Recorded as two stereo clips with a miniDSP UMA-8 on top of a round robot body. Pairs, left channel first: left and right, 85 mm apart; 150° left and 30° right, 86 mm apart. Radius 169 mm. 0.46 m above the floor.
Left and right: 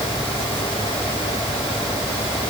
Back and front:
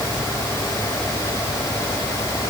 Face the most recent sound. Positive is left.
No sound to turn to.